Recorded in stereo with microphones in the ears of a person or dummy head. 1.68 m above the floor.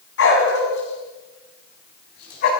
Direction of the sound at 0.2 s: 70° left (ahead or behind).